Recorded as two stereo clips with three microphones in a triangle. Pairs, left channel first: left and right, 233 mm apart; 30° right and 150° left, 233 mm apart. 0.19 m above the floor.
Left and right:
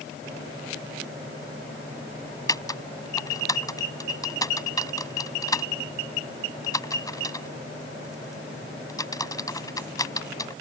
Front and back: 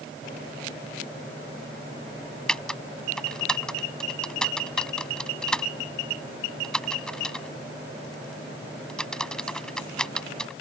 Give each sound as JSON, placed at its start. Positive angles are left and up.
{"t": 2.5, "sound": "typing on a keyboard", "azimuth_deg": 50}